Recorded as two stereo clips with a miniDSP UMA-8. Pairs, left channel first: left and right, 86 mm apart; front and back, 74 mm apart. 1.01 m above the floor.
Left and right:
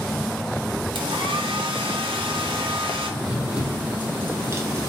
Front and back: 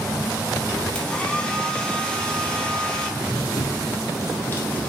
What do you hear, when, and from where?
0.9 s a hair dryer: 75° right, 1.0 m
3.2 s running footsteps: 10° right, 1.9 m; by 4.9 s 65° right, 1.3 m